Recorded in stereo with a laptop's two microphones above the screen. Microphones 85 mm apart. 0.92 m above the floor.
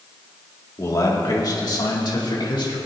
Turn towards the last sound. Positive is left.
turn(degrees=70)  # may be behind; listen again after turning